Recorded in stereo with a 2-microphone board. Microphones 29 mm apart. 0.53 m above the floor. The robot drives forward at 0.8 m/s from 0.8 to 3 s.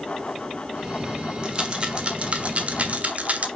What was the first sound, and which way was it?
A rattle, 30° right (ahead or behind).